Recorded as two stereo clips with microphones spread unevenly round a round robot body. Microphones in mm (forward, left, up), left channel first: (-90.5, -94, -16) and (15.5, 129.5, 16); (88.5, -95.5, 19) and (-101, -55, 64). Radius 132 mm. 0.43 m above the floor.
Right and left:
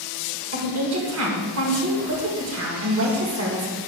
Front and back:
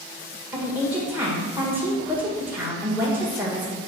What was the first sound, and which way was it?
A woman speaking, 80° left.